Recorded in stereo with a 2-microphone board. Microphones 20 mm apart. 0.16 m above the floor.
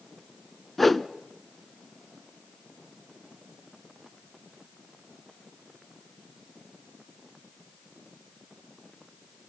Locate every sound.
0.8 s a whoosh: 10° left (ahead or behind), 0.7 m